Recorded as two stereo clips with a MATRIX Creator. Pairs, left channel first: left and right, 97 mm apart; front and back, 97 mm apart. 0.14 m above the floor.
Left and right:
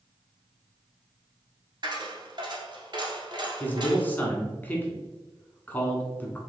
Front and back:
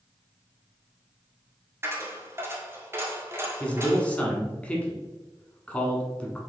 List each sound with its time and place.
1.8 s a dropped coin: 120° right, 1.3 m
3.6 s a man speaking: 55° left, 1.1 m